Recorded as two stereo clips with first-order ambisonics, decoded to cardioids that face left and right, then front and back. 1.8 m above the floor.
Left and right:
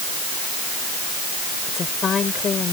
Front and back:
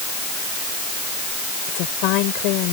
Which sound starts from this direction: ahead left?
A woman speaking, at 1.7 s.